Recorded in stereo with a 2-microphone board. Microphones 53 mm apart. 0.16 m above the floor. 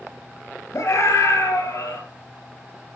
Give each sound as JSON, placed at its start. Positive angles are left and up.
{"t": 0.7, "sound": "a scream", "side_deg": 60, "distance_m": 3.0}